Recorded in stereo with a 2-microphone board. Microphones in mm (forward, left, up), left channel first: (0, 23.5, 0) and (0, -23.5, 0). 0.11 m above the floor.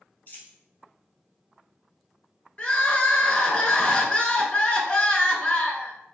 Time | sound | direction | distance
0.3 | a dropped coin | 40° left (ahead or behind) | 1.2 m
2.6 | crying | 25° left (ahead or behind) | 0.6 m